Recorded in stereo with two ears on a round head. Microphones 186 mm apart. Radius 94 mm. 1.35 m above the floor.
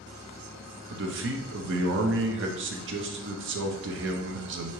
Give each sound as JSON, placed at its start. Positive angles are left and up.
{"t": 0.9, "sound": "a man speaking", "side_deg": -60, "distance_m": 0.8}